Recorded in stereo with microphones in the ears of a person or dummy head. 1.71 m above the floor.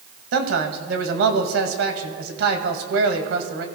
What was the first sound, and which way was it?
A man speaking, 75° right (ahead or behind).